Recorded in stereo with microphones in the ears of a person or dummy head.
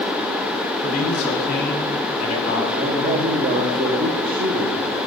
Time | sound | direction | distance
0.8 | a man speaking | 40° left (ahead or behind) | 3.5 m
2.7 | a man speaking | 40° right (ahead or behind) | 1.1 m